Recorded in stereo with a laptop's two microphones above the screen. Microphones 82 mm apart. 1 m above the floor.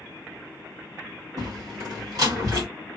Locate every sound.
1.4 s a door slam: 50° right (ahead or behind), 1.6 m